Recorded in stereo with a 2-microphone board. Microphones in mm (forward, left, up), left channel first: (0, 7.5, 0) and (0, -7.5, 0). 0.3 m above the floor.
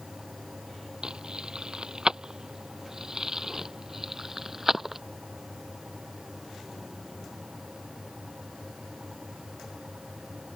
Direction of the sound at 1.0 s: 55° right (ahead or behind).